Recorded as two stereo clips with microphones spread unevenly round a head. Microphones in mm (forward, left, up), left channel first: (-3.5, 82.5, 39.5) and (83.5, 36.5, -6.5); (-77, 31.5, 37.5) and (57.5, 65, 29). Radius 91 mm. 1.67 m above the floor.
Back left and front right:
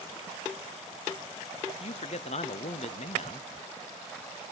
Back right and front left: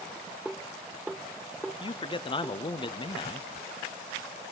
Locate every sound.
1.8 s a man speaking: 135° left, 0.8 m